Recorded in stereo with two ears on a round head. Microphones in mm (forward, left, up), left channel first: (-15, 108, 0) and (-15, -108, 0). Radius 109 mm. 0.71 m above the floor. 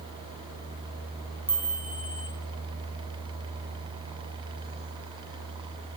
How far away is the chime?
About 4.5 m.